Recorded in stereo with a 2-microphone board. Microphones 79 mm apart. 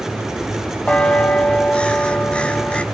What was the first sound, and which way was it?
A bell, 15° left (ahead or behind).